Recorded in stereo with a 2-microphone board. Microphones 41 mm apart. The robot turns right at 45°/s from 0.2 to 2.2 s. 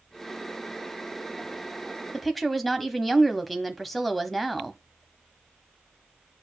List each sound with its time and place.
2.1 s a woman speaking: 5° left (ahead or behind), 1.0 m; by 4.8 s centre (ahead or behind), 1.0 m